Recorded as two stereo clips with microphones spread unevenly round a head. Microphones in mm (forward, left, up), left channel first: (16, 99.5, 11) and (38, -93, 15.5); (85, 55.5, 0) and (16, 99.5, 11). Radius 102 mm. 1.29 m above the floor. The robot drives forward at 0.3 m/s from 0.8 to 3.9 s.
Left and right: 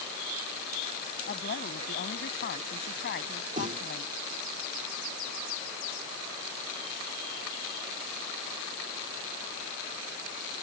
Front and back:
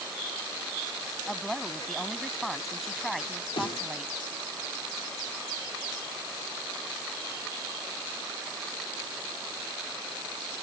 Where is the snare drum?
30° right; by 3.9 s 35° right.